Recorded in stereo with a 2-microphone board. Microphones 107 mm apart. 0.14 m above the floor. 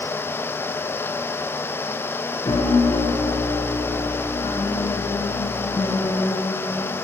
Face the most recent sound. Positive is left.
turn(degrees=70)  # may be behind; listen again after turning